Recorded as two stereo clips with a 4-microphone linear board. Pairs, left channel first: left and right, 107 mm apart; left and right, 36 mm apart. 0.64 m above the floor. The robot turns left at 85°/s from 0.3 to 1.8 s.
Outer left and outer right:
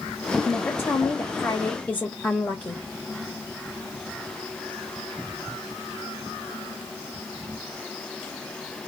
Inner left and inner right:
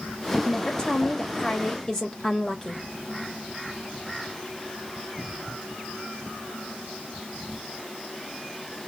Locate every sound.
0.5 s a woman speaking: 10° left (ahead or behind), 0.9 m; by 2.8 s 15° left (ahead or behind), 0.9 m